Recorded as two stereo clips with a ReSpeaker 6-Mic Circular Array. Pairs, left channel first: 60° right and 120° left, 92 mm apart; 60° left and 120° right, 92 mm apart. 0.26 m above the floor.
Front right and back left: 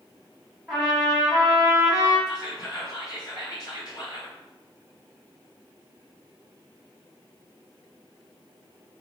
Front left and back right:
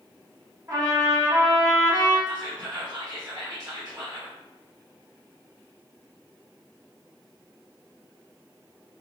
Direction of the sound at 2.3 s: 95° right.